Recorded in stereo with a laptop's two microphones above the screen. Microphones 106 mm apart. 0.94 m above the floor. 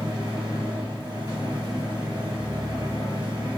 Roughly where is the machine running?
Right.